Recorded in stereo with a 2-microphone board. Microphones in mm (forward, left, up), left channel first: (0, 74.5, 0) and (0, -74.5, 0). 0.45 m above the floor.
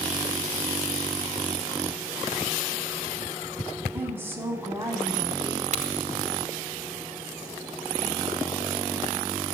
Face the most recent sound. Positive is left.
turn(degrees=-55)  # may be behind; listen again after turning